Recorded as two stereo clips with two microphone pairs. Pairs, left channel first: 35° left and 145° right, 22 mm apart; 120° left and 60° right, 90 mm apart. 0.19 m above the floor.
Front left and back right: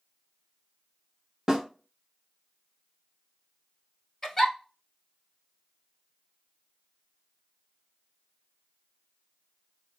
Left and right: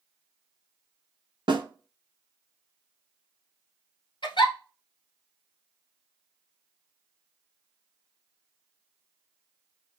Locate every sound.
1.5 s a snare drum: 85° right, 0.8 m
4.2 s a giggle: 105° left, 1.0 m